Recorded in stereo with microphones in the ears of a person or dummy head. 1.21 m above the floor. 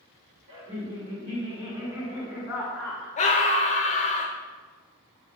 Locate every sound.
0.5 s laughter: 40° right (ahead or behind), 2.5 m; by 3.1 s 5° right (ahead or behind), 3.5 m
3.2 s a scream: 35° left (ahead or behind), 0.8 m